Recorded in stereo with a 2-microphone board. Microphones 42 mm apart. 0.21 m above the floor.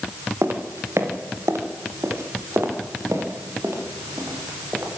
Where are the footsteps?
70° right (ahead or behind), 4.5 m; by 4.9 s 75° right (ahead or behind), 8.5 m.